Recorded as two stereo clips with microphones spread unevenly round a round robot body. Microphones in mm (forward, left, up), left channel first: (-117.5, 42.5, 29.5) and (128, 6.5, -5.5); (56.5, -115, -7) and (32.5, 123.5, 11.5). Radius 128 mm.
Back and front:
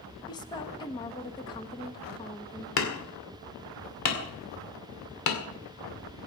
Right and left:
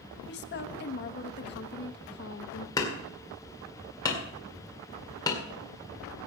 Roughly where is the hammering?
Behind.